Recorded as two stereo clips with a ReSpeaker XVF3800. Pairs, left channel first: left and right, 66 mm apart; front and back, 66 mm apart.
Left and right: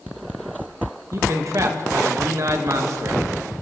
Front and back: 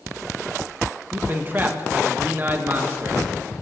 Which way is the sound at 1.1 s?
120° right.